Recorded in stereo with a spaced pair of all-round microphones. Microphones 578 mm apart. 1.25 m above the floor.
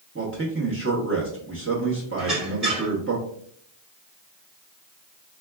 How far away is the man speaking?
About 0.9 m.